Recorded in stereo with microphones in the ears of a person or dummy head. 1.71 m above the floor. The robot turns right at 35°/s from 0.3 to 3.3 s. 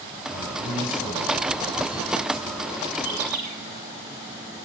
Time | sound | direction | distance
0.3 | a man speaking | 135° left | 9.5 m
3.0 | a bird | 85° right | 8.5 m